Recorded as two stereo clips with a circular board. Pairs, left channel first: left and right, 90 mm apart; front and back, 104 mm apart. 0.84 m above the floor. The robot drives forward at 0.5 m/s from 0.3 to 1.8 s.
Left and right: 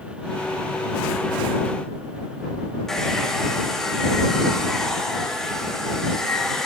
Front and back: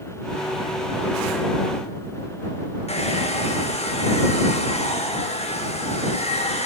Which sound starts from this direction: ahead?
A hair dryer, at 2.9 s.